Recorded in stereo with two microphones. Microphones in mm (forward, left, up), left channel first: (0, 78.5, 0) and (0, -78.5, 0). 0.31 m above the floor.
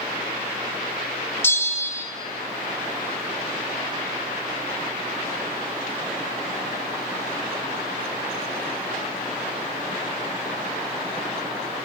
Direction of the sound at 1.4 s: 15° left (ahead or behind).